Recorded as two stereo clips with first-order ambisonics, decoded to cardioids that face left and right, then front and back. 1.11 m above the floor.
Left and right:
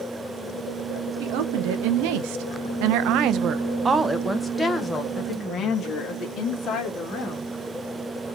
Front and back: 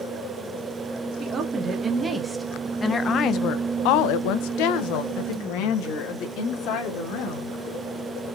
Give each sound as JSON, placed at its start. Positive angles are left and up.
{"t": 1.2, "sound": "a woman speaking", "azimuth_deg": -110, "distance_m": 1.2}